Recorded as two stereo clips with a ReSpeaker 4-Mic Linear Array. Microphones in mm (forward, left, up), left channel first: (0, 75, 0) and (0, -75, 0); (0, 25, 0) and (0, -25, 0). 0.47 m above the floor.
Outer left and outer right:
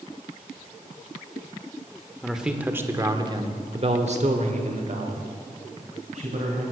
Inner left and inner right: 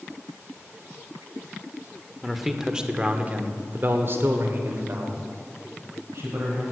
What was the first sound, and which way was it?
A man speaking, centre (ahead or behind).